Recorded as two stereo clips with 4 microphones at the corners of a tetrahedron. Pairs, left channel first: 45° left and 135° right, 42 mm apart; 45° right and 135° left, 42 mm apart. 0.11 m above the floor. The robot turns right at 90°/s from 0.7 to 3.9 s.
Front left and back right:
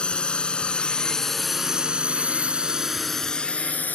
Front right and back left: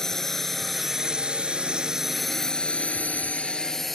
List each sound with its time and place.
0.0 s a drone: 20° left; by 4.0 s 40° left